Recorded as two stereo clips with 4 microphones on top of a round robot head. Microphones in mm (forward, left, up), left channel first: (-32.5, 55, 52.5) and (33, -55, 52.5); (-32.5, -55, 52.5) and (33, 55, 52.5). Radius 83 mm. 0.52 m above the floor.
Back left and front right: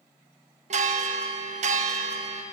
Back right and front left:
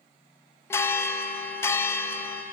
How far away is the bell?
About 0.9 m.